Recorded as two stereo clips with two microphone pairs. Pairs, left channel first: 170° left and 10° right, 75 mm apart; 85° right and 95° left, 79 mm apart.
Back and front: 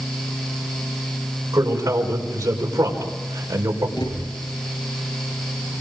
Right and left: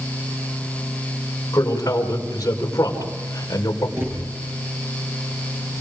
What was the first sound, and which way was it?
A man speaking, 45° right.